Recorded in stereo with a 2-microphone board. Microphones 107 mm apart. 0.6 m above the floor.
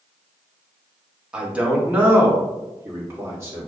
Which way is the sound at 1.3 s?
10° right (ahead or behind).